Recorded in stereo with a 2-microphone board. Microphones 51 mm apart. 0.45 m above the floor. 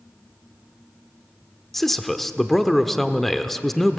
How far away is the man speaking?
About 0.8 m.